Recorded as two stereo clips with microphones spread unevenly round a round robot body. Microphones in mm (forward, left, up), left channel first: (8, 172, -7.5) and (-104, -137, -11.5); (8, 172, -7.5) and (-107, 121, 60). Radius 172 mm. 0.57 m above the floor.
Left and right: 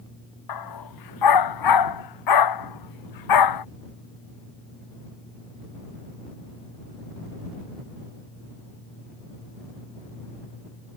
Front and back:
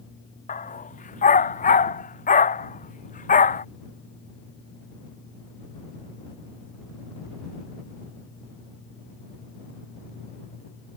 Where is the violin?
I don't hear a violin.